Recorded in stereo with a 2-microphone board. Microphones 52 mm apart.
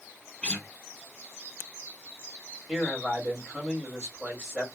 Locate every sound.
0.4 s a guitar: 20° left (ahead or behind), 0.7 m
2.7 s a man speaking: 20° right (ahead or behind), 2 m